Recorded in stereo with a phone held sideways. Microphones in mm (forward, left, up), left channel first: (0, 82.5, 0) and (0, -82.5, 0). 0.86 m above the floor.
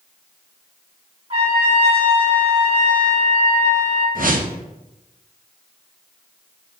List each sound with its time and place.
1.3 s a trumpet: 40° right (ahead or behind), 1.5 m
4.2 s a whoosh: 65° right (ahead or behind), 0.6 m